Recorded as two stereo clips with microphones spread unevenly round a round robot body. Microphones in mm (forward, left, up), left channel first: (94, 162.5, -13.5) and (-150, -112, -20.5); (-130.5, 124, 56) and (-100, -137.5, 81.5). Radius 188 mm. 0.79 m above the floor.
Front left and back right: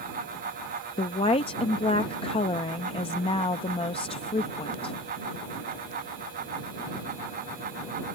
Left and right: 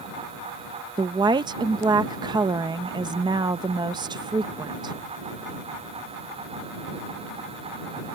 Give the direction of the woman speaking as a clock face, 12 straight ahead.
1 o'clock.